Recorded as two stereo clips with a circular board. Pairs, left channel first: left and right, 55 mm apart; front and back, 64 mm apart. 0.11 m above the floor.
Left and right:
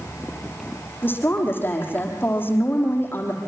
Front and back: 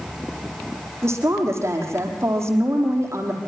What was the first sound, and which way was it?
A woman speaking, 140° left.